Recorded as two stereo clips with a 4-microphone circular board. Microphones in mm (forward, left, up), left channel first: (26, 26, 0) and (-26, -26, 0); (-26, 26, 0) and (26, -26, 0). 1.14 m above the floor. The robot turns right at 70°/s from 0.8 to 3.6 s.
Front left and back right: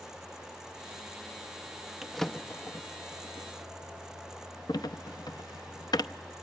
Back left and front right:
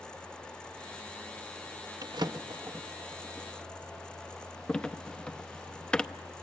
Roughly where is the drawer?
Ahead right.